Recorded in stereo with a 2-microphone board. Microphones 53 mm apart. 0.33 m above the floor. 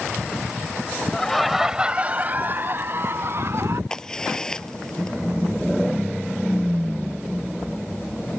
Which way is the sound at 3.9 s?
15° left (ahead or behind).